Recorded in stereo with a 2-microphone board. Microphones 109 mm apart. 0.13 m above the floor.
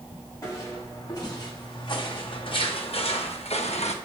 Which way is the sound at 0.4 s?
30° left (ahead or behind).